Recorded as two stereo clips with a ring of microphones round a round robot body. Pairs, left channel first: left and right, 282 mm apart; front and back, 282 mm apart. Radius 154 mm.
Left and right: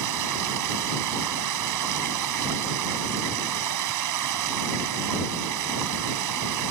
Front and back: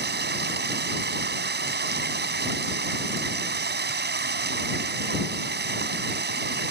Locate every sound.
0.0 s running water: 125° right